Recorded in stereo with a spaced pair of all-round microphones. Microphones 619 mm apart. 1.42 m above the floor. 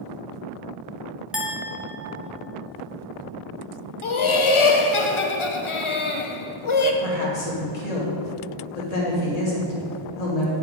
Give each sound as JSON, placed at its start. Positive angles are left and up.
{"t": 1.3, "sound": "a clink", "side_deg": 0, "distance_m": 1.1}
{"t": 4.0, "sound": "laughter", "side_deg": 50, "distance_m": 0.7}
{"t": 7.0, "sound": "a woman speaking", "side_deg": 75, "distance_m": 1.7}